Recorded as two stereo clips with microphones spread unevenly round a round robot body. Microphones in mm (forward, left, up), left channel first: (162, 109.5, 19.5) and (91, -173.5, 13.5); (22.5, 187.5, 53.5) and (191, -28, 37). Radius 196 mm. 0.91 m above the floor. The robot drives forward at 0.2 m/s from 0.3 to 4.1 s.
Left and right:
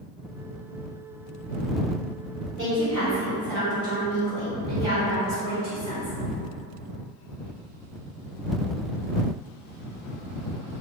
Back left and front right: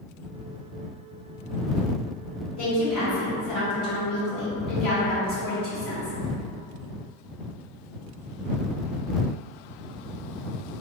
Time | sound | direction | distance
2.6 | a woman speaking | 160° left | 1.4 m